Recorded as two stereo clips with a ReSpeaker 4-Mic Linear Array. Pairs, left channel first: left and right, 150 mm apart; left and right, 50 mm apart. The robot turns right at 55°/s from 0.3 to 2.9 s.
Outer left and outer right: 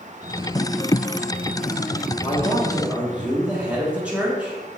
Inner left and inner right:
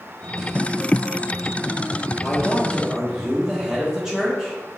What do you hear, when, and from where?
2.2 s a man speaking: 150° left, 1.2 m; by 4.6 s 170° right, 1.2 m